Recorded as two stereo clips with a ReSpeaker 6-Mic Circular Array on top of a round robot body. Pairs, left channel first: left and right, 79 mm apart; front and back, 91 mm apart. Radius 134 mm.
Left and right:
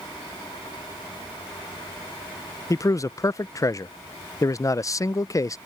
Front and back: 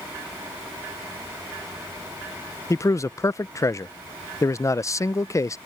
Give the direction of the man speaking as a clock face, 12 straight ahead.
10 o'clock.